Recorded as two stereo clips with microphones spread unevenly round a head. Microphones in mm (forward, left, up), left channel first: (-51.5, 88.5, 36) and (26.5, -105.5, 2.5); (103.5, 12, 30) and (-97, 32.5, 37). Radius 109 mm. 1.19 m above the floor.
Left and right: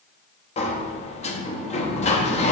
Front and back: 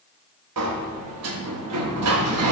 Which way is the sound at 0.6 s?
170° left.